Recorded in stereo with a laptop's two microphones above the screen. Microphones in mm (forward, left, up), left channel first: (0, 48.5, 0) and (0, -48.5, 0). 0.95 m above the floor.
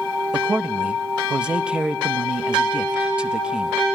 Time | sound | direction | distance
0.3 | a man speaking | 10° right (ahead or behind) | 0.8 m